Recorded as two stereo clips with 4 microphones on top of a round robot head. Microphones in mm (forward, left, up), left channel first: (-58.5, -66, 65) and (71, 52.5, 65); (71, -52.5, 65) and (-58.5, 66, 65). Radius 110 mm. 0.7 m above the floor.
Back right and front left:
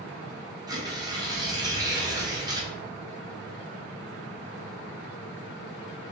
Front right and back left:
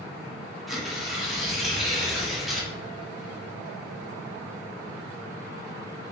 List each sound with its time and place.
0.7 s tearing paper: 50° left, 1.1 m